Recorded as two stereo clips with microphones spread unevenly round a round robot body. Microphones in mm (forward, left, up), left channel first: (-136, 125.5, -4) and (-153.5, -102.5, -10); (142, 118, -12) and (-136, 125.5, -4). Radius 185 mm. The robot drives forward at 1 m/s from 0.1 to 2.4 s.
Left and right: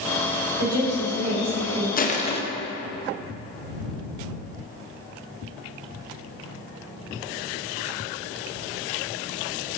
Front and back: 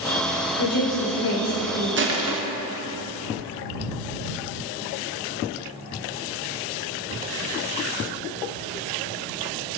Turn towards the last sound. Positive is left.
turn(degrees=155)